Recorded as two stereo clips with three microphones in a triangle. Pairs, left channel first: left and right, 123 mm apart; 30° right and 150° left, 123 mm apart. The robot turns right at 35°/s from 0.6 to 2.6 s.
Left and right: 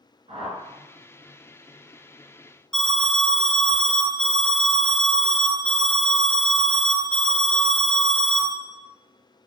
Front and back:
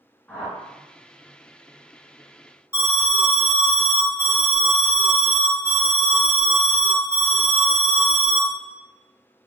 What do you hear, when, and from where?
0.3 s a whoosh: 110° right, 1.0 m; by 0.8 s 105° right, 1.0 m
2.7 s an alarm: 165° left, 1.5 m